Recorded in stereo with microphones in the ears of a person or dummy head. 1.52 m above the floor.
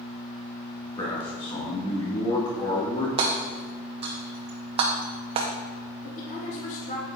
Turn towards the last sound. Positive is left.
turn(degrees=45)  # may be behind; listen again after turning